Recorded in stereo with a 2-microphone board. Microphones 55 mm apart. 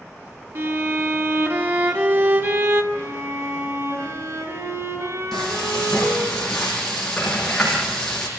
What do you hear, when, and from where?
0.6 s a violin: 50° right (ahead or behind), 2 m
2.9 s a violin: 85° right, 10 m
5.3 s frying: 5° left (ahead or behind), 7 m